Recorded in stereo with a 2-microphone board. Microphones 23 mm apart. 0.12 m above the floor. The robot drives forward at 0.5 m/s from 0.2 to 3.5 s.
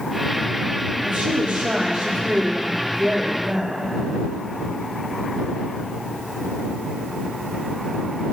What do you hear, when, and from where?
1.0 s a woman speaking: 65° right (ahead or behind), 4.5 m; by 3.9 s 60° right (ahead or behind), 4.5 m